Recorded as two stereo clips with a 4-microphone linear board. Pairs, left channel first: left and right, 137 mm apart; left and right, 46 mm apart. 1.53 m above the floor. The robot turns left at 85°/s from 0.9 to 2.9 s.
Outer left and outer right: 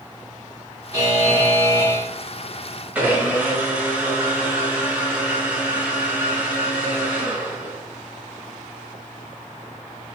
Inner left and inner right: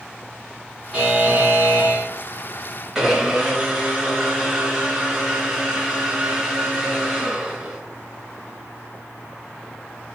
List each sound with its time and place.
0.9 s a buzzer: 35° right, 1.4 m; by 2.1 s 130° right, 1.4 m
3.0 s a blender: 10° right (ahead or behind), 1.2 m